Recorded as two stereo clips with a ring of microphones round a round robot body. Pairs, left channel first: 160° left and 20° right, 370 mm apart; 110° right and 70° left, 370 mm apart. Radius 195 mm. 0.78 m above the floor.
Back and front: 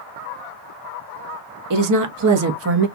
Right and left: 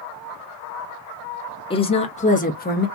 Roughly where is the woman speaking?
Ahead right.